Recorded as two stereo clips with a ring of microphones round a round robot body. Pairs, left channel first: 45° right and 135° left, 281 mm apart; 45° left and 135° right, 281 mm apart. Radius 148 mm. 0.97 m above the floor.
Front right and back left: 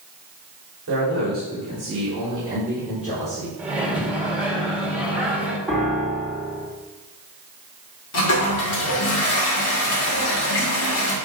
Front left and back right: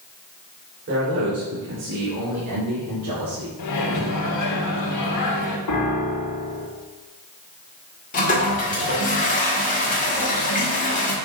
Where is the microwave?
50° left, 1.6 m.